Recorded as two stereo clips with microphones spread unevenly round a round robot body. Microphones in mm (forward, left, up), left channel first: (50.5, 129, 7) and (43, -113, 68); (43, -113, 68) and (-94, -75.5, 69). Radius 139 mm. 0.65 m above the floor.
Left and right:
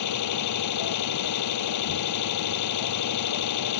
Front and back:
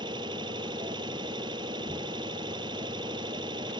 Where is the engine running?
95° left.